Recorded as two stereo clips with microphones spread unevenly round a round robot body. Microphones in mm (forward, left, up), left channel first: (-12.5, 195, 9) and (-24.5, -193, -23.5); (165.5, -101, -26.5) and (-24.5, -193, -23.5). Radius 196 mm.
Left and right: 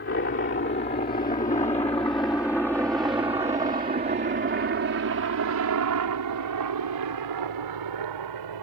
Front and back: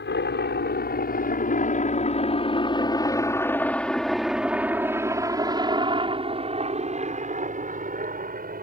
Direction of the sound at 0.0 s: 30° left.